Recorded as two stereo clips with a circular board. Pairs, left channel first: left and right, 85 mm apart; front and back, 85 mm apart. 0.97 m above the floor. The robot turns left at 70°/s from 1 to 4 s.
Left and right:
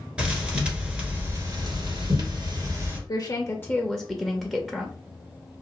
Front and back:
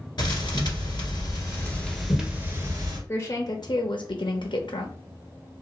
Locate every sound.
0.2 s a thud: 15° right, 1.7 m; by 3.0 s 155° right, 1.7 m
3.1 s a woman speaking: 65° left, 0.7 m; by 4.9 s straight ahead, 0.7 m